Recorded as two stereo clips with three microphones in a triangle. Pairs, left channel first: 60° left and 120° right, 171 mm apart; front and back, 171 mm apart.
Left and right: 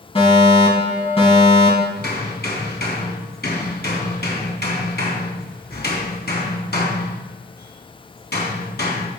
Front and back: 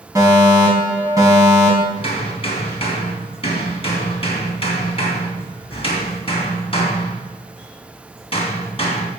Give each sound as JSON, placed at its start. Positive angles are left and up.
{"t": 0.1, "sound": "a fire alarm", "azimuth_deg": 110, "distance_m": 5.0}
{"t": 2.0, "sound": "hammering", "azimuth_deg": 55, "distance_m": 3.5}